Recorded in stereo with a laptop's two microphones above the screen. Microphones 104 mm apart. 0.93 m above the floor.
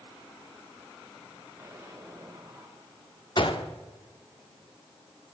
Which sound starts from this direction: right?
An explosion, at 1.6 s.